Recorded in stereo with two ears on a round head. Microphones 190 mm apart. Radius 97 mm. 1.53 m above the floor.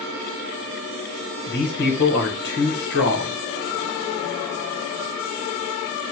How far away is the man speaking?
About 1.0 m.